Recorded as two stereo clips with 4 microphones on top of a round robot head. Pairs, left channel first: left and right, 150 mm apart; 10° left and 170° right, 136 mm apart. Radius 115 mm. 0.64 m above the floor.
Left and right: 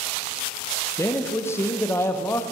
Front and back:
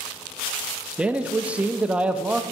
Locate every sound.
1.0 s a man speaking: 125° left, 0.5 m